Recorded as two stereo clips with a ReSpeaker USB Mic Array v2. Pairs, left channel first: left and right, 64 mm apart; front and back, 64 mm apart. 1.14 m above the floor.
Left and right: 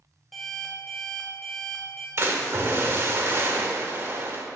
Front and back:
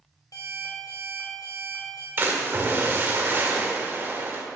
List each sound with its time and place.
0.3 s an alarm clock: straight ahead, 2 m
2.2 s a splash: 135° right, 1.3 m